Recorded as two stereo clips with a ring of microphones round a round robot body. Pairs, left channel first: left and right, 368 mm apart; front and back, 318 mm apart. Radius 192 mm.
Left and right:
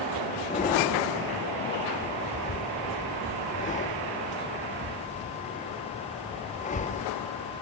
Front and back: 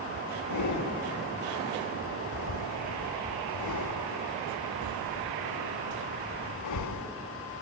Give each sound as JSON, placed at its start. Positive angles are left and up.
{"t": 0.5, "sound": "breathing", "azimuth_deg": 20, "distance_m": 1.5}